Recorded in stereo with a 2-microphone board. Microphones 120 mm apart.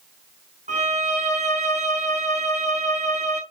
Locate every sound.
0.7 s a violin: 80° right, 4.5 m